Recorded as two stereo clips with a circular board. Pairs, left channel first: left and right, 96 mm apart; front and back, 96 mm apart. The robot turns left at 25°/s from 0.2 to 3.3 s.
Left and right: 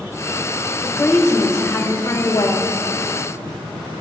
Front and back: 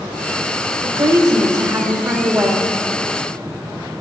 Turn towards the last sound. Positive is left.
turn(degrees=95)